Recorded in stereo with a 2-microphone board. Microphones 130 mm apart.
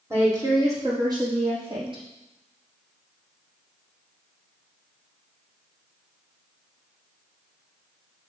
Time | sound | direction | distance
0.1 | a woman speaking | 20° right (ahead or behind) | 5 m